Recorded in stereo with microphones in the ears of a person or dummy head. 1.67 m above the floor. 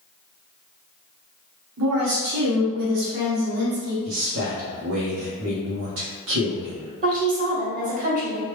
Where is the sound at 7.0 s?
45° right (ahead or behind), 1.5 m.